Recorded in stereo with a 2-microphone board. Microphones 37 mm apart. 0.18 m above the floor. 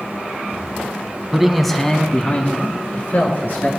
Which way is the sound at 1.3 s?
15° right (ahead or behind).